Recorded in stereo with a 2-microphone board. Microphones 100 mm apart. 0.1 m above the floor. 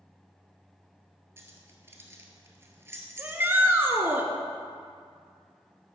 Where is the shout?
20° right (ahead or behind), 1.2 m.